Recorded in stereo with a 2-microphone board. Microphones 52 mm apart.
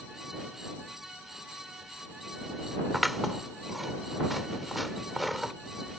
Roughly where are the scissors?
Centre.